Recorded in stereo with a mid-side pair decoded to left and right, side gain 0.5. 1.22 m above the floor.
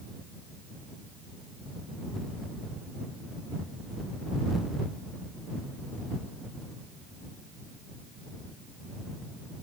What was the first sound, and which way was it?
Only background noise.